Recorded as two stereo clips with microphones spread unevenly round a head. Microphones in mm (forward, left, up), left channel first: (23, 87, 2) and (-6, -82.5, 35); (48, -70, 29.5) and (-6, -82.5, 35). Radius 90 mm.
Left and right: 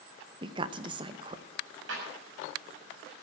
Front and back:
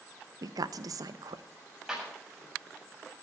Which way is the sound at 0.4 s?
165° right.